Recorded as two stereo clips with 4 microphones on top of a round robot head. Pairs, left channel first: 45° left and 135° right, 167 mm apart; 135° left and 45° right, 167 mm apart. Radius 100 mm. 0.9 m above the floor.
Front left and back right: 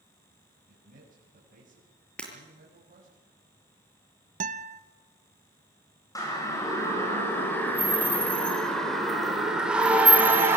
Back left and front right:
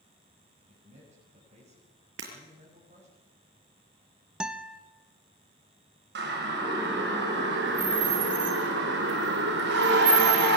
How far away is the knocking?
I don't hear knocking.